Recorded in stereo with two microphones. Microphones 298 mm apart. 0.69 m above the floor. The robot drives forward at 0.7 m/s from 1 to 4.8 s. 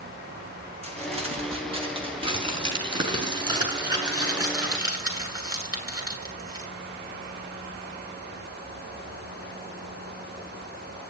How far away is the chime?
I don't hear a chime.